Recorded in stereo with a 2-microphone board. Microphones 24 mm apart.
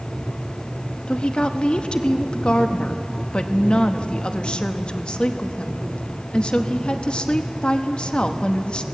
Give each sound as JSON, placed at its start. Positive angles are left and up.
{"t": 1.1, "sound": "a woman speaking", "side_deg": 50, "distance_m": 1.0}